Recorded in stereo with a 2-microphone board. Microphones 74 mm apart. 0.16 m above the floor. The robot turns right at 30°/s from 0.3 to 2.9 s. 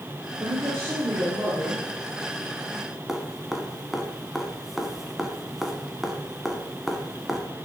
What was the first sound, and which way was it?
A man speaking, 75° right.